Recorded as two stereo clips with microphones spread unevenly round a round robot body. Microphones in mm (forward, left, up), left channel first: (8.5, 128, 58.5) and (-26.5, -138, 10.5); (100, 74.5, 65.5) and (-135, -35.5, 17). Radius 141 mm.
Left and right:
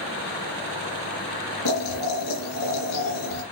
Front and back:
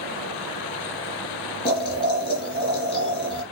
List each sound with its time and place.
1.6 s boiling: 95° left, 4 m